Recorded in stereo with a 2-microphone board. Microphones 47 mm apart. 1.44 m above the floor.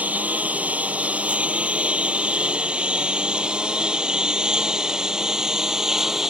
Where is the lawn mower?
30° right (ahead or behind); by 6.3 s 10° right (ahead or behind).